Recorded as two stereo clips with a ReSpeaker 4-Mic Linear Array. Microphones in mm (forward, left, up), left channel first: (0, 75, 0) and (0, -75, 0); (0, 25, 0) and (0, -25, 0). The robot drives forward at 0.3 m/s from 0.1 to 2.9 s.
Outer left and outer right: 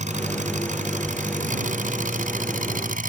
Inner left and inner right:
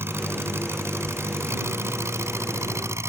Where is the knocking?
No knocking in this recording.